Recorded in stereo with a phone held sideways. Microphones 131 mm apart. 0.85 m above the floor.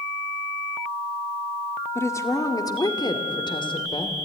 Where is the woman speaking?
20° left (ahead or behind), 1.8 m; by 4.2 s 40° left (ahead or behind), 2.5 m.